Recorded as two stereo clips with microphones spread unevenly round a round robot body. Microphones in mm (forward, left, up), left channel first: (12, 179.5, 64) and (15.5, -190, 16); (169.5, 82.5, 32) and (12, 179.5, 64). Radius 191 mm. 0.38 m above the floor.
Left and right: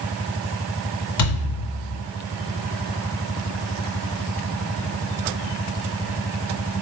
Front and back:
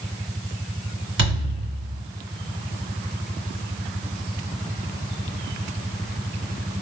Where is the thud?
140° left, 2 m.